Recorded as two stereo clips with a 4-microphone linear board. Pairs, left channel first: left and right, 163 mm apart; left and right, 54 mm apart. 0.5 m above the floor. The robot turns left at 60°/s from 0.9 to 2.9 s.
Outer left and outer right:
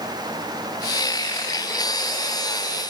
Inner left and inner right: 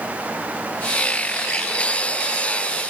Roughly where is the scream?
No scream in this recording.